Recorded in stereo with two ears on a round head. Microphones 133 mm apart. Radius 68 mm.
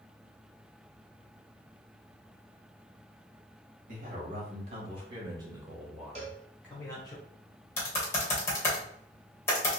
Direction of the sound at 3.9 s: 55° right (ahead or behind).